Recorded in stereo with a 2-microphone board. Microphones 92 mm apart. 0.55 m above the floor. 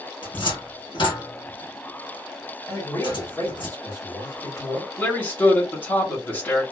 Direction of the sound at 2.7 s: 25° left (ahead or behind).